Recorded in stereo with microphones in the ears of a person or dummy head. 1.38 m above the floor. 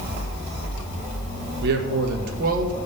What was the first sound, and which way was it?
A man speaking, 70° right (ahead or behind).